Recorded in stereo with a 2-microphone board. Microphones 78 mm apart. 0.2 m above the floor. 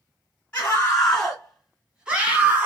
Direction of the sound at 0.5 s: 20° left (ahead or behind).